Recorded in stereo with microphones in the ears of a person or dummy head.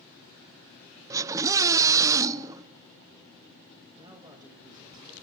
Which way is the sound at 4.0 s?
20° right (ahead or behind).